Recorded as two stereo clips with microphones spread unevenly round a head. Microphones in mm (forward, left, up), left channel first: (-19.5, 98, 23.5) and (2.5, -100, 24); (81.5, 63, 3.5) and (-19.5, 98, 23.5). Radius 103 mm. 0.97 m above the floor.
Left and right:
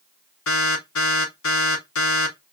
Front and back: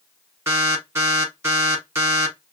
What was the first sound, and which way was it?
An alarm, 95° left.